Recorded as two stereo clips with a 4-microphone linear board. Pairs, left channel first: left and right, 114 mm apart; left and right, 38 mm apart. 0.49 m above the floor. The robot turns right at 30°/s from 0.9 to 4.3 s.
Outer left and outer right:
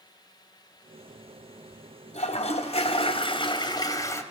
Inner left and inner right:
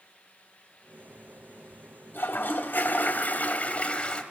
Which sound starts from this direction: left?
A toilet flushing, at 2.1 s.